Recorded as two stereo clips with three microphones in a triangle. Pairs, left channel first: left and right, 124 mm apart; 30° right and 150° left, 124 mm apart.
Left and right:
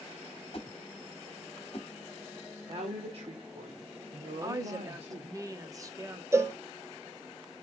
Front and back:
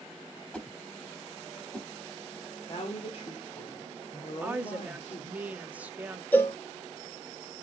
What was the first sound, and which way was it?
A whoosh, 50° left.